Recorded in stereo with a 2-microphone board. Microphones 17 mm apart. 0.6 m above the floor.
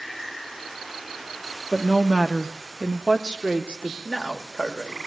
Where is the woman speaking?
40° left (ahead or behind), 0.9 m; by 4.0 s 65° right (ahead or behind), 1.5 m.